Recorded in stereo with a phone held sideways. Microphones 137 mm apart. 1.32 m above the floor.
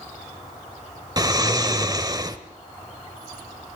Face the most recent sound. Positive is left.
turn(degrees=-30)  # may be behind; listen again after turning